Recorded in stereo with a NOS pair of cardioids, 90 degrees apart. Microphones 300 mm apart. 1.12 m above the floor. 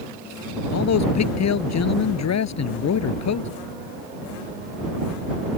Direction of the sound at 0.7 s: 60° left.